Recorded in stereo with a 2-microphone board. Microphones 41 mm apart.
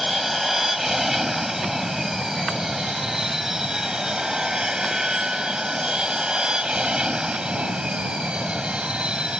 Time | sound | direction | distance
0.0 | an aircraft | 5° right (ahead or behind) | ?